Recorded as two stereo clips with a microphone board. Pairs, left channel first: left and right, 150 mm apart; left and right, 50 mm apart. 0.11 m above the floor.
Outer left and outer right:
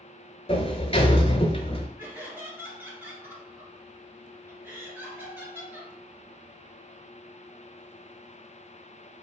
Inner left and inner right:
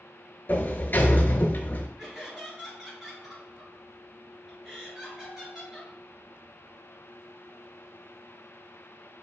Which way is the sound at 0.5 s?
45° left (ahead or behind).